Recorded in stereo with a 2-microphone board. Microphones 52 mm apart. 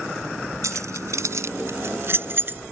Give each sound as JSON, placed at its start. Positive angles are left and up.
{"t": 0.6, "sound": "keys jangling", "side_deg": -75}